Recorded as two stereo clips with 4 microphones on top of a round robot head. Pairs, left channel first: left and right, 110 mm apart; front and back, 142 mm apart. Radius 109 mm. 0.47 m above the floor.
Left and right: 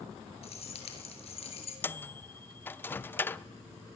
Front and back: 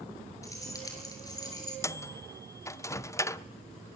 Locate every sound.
0.4 s keys jangling: 70° left, 7 m; by 1.7 s 65° left, 7.5 m
1.8 s a microwave: 45° left, 0.8 m